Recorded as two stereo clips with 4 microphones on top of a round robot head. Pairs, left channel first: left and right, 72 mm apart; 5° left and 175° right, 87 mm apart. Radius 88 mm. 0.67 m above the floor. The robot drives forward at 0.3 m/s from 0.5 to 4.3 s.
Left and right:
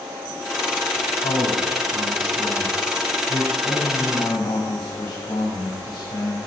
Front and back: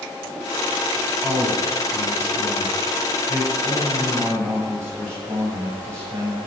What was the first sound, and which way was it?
A man speaking, 115° left.